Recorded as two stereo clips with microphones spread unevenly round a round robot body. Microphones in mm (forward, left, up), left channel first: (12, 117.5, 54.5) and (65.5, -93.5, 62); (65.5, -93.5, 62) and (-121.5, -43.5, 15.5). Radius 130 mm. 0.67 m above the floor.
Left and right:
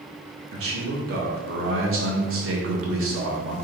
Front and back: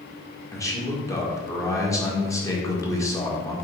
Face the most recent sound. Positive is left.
turn(degrees=-95)